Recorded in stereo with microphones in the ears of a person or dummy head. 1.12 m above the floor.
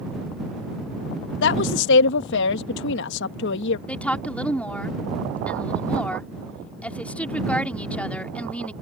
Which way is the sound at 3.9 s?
5° left (ahead or behind).